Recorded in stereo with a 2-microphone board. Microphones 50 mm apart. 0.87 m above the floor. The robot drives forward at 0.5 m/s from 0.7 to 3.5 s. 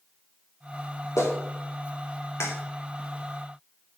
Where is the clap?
75° left (ahead or behind), 2.5 m; by 2.5 s 65° left (ahead or behind), 2.5 m.